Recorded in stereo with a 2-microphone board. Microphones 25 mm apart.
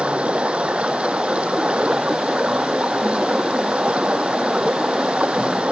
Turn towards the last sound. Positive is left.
turn(degrees=-60)  # may be behind; listen again after turning